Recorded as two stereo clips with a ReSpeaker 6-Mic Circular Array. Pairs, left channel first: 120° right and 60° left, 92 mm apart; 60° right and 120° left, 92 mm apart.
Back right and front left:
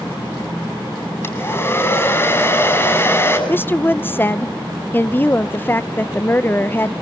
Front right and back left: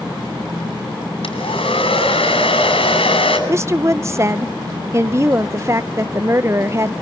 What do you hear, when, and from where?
1.2 s a hair dryer: 60° right, 5.5 m
3.5 s a woman speaking: 175° left, 0.6 m